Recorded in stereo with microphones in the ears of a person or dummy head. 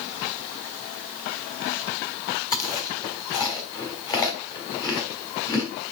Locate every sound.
2.5 s chewing: 20° left (ahead or behind), 3 m